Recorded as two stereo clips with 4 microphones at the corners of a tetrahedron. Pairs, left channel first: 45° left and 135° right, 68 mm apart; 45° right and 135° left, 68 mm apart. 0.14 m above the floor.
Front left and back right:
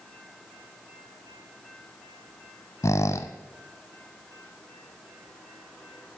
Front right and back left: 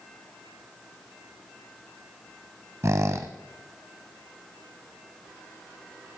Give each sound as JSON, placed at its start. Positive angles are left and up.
{"t": 2.8, "sound": "a squeak", "azimuth_deg": 90, "distance_m": 0.7}